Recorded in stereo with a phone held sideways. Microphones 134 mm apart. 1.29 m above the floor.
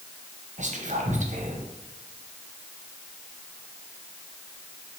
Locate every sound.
0.6 s whispering: 65° right (ahead or behind), 0.8 m